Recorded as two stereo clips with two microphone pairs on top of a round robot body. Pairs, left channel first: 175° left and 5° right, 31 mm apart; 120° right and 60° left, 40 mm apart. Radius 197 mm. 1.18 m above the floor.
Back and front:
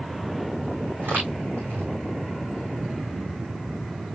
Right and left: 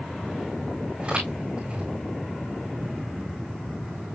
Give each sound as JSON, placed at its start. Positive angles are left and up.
{"t": 1.0, "sound": "footsteps", "azimuth_deg": -5, "distance_m": 4.5}